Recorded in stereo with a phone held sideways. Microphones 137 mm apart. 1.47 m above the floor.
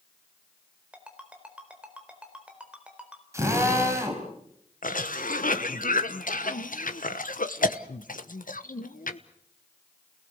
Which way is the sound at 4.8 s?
85° left.